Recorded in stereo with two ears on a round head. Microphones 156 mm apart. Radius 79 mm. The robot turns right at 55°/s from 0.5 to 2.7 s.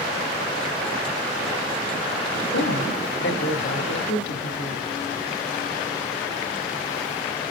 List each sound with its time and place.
2.5 s a woman speaking: 60° left (ahead or behind), 1.8 m; by 5.0 s 65° left (ahead or behind), 1.8 m